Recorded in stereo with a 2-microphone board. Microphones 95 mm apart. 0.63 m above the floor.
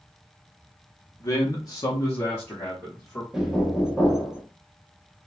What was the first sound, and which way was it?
A man speaking, 30° left (ahead or behind).